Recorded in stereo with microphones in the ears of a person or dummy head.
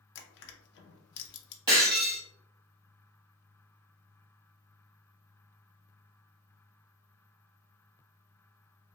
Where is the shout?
I don't hear a shout.